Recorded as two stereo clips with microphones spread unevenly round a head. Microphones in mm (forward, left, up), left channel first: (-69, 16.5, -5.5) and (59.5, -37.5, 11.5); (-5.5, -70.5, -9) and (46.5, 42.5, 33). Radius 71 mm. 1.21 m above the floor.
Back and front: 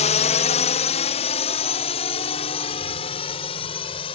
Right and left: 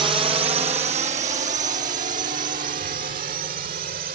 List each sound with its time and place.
0.0 s a drone: 130° left; by 4.2 s 100° left